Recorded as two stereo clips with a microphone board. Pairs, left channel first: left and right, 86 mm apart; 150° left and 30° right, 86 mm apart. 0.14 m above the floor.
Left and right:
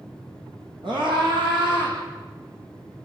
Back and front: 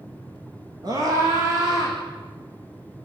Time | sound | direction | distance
0.8 | a scream | 75° right | 8 m